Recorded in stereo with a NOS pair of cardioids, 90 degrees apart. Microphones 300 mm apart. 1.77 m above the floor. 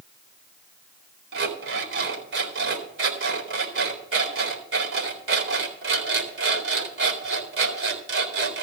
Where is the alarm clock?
45° right, 4 m.